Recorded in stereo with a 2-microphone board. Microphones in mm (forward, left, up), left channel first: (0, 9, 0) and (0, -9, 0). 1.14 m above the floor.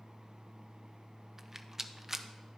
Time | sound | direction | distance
1.4 | a rattle | 25° right (ahead or behind) | 0.5 m